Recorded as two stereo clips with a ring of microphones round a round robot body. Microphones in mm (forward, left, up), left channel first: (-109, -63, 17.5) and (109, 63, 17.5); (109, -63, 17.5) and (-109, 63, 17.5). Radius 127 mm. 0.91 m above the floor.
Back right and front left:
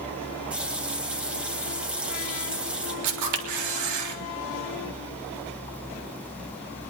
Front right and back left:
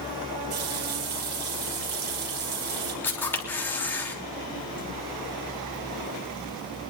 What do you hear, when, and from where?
0.5 s a running tap: 115° left, 3.5 m
3.0 s a camera shutter: 50° left, 3 m